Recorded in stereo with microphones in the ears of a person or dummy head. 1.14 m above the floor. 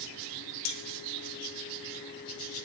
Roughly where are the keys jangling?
Left.